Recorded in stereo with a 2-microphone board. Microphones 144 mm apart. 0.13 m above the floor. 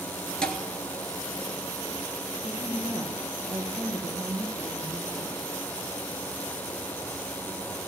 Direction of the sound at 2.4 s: 60° right (ahead or behind).